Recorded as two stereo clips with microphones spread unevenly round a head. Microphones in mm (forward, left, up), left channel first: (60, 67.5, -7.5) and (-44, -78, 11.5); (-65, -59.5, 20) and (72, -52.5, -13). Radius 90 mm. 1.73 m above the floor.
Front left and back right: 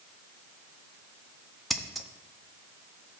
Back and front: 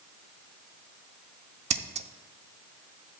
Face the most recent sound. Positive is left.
turn(degrees=-40)